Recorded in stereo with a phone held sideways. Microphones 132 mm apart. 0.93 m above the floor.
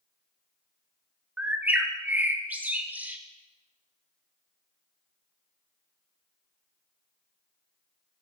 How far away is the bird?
About 0.5 m.